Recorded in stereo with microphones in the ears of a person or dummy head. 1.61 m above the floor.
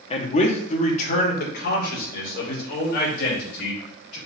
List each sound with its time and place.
0.1 s a man speaking: 35° left (ahead or behind), 0.9 m; by 4.2 s 65° left (ahead or behind), 3 m